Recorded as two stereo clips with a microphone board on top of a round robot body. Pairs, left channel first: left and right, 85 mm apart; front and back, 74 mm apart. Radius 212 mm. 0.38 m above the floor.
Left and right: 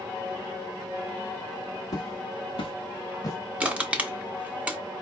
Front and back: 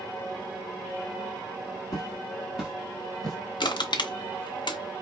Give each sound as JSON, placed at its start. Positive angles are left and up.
{"t": 1.9, "sound": "footsteps", "azimuth_deg": 45, "distance_m": 1.0}
{"t": 3.6, "sound": "crushing", "azimuth_deg": -15, "distance_m": 0.7}